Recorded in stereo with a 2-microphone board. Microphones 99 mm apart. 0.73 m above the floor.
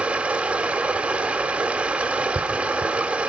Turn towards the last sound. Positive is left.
turn(degrees=-10)  # may be behind; listen again after turning